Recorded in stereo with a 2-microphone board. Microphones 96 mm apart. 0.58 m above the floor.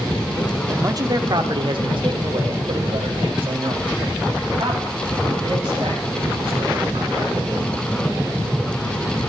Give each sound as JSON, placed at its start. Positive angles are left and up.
{"t": 0.7, "sound": "a man speaking", "side_deg": -30, "distance_m": 0.8}